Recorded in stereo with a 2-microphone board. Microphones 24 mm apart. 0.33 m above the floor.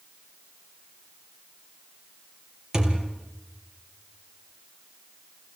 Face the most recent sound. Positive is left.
turn(degrees=-25)  # may be behind; listen again after turning